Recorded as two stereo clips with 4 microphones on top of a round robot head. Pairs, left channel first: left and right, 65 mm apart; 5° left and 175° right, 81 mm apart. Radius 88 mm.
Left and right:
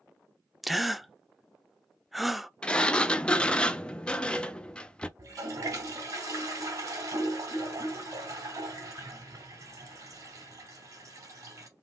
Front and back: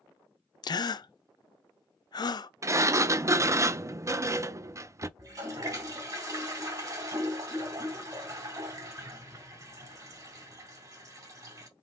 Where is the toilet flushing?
130° right, 3 m.